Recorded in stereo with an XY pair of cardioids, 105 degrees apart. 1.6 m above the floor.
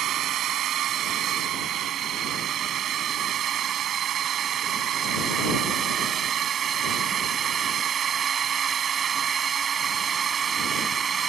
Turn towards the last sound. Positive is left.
turn(degrees=-45)